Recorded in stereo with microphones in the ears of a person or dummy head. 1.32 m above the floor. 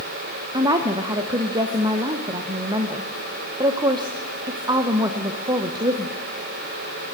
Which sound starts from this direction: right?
A woman speaking, at 0.5 s.